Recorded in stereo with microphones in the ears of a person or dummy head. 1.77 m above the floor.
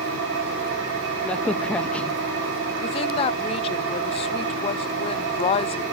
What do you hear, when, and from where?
0.0 s an engine running: 60° right (ahead or behind), 6.5 m
1.2 s a crack: 5° left (ahead or behind), 0.6 m
2.8 s a woman speaking: 30° left (ahead or behind), 0.9 m